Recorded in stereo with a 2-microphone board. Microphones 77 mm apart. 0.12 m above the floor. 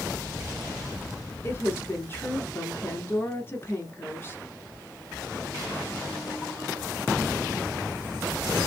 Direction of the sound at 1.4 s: 30° left (ahead or behind).